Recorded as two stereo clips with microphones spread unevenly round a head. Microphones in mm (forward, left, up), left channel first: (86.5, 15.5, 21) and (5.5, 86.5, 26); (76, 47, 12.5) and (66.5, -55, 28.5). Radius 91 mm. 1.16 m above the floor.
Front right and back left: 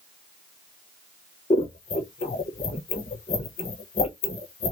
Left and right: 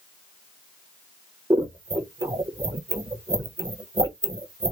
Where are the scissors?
45° right, 1.3 m.